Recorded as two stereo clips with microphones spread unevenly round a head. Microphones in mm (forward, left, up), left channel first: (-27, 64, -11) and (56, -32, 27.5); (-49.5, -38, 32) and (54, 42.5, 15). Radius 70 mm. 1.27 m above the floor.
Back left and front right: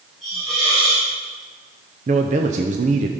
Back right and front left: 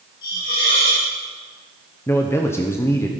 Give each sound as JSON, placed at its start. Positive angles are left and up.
{"t": 0.2, "sound": "a hiss", "azimuth_deg": -135, "distance_m": 4.5}
{"t": 2.1, "sound": "a man speaking", "azimuth_deg": -70, "distance_m": 0.7}